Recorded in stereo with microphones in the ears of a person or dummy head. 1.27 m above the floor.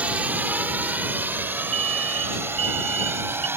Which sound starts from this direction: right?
An alarm, at 1.7 s.